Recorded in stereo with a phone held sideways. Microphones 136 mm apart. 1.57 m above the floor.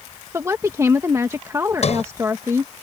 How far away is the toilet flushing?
No toilet flushing in this recording.